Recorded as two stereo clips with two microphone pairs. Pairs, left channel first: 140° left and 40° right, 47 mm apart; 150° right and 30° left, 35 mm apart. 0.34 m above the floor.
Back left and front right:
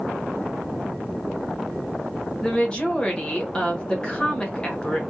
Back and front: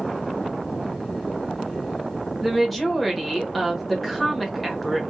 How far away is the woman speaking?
About 1.1 m.